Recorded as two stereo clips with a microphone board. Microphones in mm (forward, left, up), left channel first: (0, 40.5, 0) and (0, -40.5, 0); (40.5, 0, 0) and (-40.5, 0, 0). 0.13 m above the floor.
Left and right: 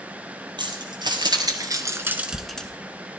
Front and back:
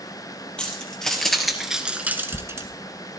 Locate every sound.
0.6 s keys jangling: 80° right, 2 m; by 2.7 s 160° left, 1.0 m